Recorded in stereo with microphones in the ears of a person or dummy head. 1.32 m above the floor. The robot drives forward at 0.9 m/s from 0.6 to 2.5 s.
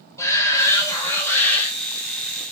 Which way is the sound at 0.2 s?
15° left (ahead or behind).